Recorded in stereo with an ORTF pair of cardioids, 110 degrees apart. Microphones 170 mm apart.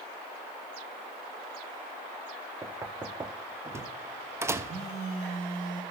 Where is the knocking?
15° right, 0.6 m.